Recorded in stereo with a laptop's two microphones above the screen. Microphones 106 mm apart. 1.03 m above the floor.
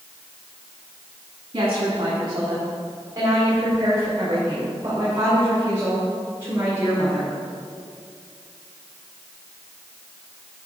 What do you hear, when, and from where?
1.5 s a woman speaking: 55° right (ahead or behind), 1.7 m; by 7.3 s 20° right (ahead or behind), 5 m